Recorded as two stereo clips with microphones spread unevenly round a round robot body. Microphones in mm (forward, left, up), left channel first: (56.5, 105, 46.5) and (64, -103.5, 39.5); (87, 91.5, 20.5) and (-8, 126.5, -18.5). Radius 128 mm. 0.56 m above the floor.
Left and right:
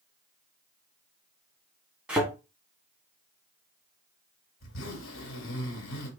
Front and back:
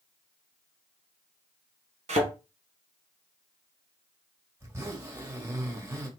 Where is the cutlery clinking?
No cutlery clinking in this recording.